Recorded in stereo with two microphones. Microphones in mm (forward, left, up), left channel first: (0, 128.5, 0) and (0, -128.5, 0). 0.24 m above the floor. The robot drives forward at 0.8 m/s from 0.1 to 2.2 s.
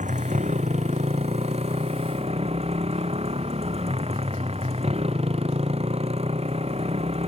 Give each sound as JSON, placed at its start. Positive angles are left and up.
{"t": 0.0, "sound": "a motorcycle", "side_deg": -30}